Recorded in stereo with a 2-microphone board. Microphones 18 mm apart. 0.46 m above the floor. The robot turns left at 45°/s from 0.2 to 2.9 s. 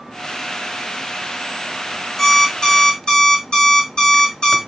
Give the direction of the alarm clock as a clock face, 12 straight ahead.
7 o'clock.